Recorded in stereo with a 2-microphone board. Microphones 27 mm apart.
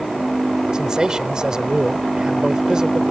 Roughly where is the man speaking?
Right.